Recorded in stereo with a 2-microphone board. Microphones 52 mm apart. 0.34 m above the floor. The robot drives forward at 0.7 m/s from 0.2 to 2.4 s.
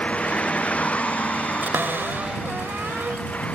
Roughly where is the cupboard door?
Right.